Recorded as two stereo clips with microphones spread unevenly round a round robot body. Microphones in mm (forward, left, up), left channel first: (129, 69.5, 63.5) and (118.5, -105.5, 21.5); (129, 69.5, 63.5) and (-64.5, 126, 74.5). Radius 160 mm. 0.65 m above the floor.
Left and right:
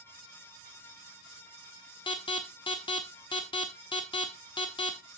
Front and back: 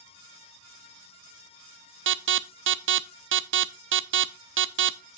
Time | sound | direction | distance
2.1 | an alarm | 160° left | 0.8 m